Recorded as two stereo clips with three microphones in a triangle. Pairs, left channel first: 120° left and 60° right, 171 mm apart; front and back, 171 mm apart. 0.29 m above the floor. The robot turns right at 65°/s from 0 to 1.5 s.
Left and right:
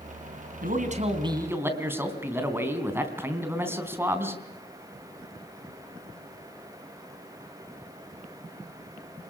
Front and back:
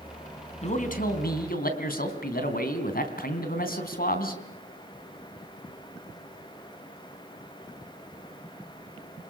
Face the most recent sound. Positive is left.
turn(degrees=15)